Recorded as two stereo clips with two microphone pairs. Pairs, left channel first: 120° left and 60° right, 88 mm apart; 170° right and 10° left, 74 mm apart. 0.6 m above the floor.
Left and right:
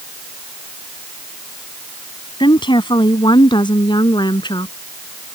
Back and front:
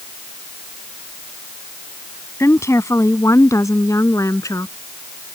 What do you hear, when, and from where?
2.4 s a woman speaking: 140° left; by 4.7 s 150° left